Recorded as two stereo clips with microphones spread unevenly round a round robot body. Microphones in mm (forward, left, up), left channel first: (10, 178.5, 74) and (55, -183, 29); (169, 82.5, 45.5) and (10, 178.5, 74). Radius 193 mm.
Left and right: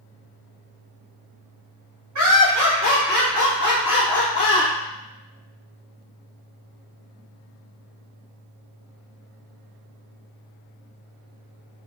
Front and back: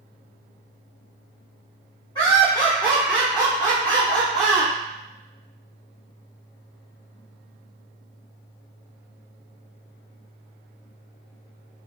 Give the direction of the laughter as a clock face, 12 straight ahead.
3 o'clock.